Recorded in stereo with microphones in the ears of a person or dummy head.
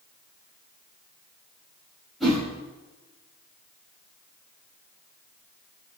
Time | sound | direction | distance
2.2 | a whoosh | centre (ahead or behind) | 4 m